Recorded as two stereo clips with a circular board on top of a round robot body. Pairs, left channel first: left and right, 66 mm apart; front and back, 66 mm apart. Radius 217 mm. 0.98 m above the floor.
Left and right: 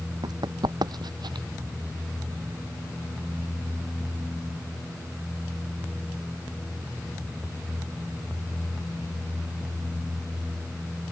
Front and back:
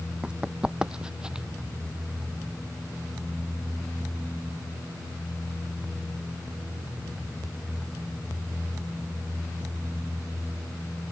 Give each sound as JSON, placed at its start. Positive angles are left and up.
{"t": 0.2, "sound": "running footsteps", "azimuth_deg": -105}